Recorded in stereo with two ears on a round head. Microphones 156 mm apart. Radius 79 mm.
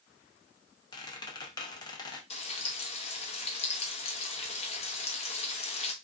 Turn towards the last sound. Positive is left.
turn(degrees=35)  # may be behind; listen again after turning